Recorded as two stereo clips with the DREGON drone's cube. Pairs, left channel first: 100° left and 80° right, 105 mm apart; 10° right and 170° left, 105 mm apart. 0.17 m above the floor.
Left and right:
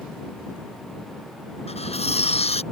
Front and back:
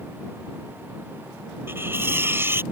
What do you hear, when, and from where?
1.7 s cutlery clinking: 105° left